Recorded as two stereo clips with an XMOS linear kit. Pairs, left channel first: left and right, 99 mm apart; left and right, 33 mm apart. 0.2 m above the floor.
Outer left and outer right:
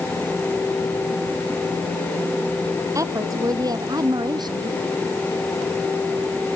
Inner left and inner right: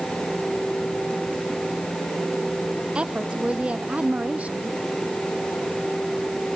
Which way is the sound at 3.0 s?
35° right (ahead or behind).